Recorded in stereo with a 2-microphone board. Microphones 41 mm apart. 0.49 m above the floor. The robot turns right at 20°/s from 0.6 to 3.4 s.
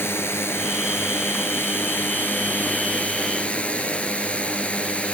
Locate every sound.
0.0 s a drone: 95° left; by 5.2 s 150° left